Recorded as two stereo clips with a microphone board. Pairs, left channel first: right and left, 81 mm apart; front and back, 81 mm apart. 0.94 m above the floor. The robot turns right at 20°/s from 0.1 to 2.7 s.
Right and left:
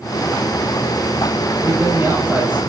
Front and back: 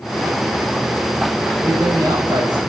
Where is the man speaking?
140° left, 7 m; by 2.6 s 160° left, 7 m.